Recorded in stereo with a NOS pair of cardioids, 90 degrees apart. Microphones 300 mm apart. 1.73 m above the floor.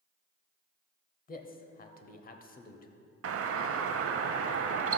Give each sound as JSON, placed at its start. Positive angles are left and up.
{"t": 1.3, "sound": "a man speaking", "azimuth_deg": 30, "distance_m": 0.8}
{"t": 3.2, "sound": "a doorbell", "azimuth_deg": -50, "distance_m": 0.6}